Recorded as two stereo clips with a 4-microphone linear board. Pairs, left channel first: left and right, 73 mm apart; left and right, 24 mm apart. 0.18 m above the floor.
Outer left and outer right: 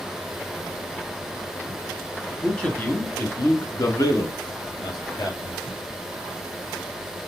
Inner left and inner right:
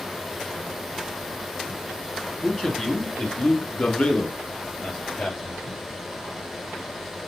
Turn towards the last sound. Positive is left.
turn(degrees=55)  # may be behind; listen again after turning